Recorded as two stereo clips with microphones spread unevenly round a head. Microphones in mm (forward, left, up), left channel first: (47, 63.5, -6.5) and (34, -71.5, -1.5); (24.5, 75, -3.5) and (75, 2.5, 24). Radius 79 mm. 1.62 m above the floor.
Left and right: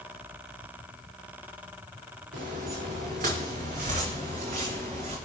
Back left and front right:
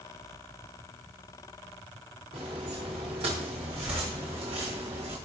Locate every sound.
2.3 s footsteps: 90° right, 5.5 m; by 5.2 s 65° right, 7.5 m